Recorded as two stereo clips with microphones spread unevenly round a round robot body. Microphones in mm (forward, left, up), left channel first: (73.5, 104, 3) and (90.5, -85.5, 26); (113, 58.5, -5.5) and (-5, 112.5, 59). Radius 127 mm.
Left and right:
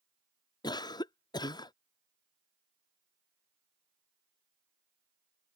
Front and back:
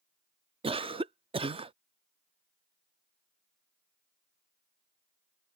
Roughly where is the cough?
Left.